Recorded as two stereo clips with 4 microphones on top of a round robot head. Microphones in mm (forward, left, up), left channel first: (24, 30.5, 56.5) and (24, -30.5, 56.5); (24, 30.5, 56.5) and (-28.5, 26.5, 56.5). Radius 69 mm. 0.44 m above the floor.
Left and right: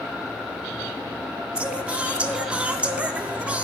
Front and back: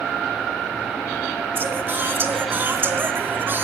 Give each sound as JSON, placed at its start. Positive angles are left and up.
{"t": 1.6, "sound": "singing", "azimuth_deg": -150, "distance_m": 1.0}